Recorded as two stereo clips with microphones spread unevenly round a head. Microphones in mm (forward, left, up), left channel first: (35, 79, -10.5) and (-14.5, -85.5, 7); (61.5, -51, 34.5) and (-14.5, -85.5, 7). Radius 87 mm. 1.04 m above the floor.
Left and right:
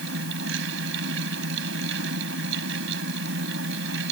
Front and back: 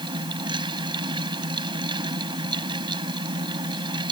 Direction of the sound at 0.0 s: 130° right.